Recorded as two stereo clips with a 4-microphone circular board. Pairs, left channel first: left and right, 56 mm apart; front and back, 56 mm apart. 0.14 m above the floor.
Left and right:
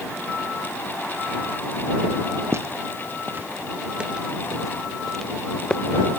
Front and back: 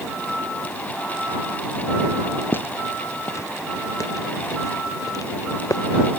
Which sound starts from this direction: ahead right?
Footsteps, at 2.5 s.